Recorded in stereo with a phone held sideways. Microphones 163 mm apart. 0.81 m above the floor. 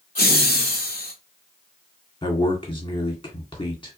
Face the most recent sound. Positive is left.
turn(degrees=30)  # may be behind; listen again after turning